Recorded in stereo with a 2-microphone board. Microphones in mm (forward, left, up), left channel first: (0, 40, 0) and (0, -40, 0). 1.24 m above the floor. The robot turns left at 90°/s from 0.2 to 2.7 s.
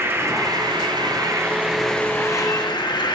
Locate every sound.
0.0 s an insect: 35° right, 0.8 m; by 3.2 s 100° left, 0.8 m